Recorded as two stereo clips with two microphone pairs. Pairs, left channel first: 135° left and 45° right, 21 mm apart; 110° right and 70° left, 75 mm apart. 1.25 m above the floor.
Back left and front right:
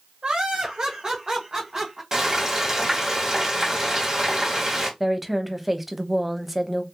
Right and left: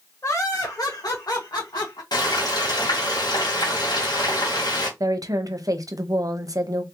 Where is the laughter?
65° right, 1.1 m; by 2.0 s 105° right, 1.8 m.